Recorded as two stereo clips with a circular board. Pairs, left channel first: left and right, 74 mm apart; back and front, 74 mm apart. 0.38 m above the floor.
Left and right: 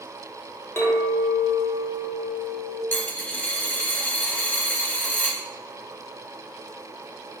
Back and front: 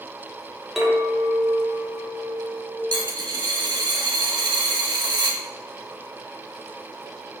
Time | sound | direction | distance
0.8 | a clink | 85° left | 0.9 m
2.9 | a dropped coin | 20° left | 0.5 m